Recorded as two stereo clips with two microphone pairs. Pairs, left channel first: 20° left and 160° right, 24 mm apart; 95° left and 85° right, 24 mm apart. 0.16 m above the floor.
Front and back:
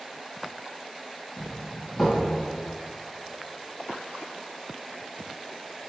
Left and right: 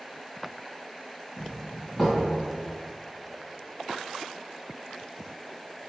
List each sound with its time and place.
1.4 s a doorbell: 5° left, 1.4 m